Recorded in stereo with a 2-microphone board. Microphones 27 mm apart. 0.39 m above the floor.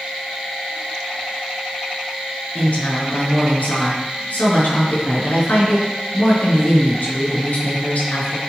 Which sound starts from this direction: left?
A woman speaking, at 2.5 s.